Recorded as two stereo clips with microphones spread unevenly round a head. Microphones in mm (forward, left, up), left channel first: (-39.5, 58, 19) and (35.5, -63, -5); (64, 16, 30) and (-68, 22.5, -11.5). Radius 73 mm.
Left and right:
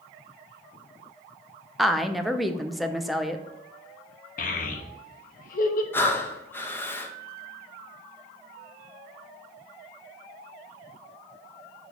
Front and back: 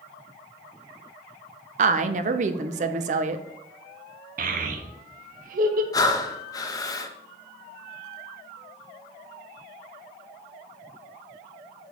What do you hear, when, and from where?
1.8 s a woman speaking: 145° right, 0.6 m
4.4 s a child speaking: 150° left, 1.0 m
5.9 s breathing: 50° left, 0.7 m